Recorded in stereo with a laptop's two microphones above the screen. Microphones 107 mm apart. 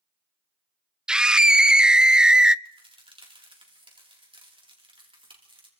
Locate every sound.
1.1 s a scream: 10° right (ahead or behind), 0.5 m
2.6 s a crack: 50° right (ahead or behind), 3.5 m